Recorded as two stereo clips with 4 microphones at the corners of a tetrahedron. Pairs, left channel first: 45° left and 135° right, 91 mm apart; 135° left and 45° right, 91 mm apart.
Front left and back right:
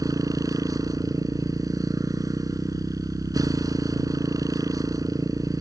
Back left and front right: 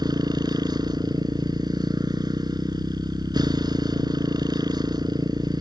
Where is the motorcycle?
85° right.